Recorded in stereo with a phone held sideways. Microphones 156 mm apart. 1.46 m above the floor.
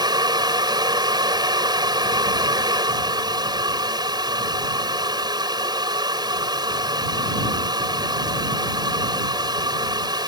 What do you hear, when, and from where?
0.0 s a fan: 25° right (ahead or behind)